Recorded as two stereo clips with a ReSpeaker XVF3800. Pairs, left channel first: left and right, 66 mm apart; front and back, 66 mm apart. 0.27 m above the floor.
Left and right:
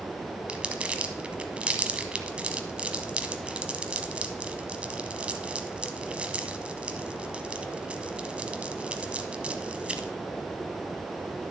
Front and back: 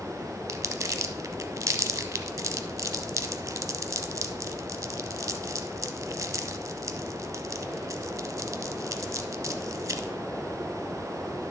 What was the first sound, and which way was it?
Crumpling, 155° right.